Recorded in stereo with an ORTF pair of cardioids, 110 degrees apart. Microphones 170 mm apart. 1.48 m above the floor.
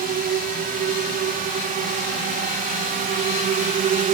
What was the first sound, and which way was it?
A drone, 65° right.